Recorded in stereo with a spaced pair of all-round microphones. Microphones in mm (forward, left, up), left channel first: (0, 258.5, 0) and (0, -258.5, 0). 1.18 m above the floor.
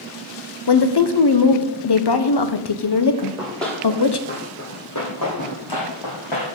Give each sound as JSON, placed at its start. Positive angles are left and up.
{"t": 0.7, "sound": "a woman speaking", "side_deg": 50, "distance_m": 0.7}
{"t": 3.2, "sound": "running footsteps", "side_deg": -5, "distance_m": 2.0}